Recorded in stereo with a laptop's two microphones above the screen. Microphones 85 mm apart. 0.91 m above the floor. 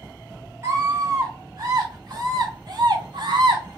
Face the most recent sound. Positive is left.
turn(degrees=-60)  # may be behind; listen again after turning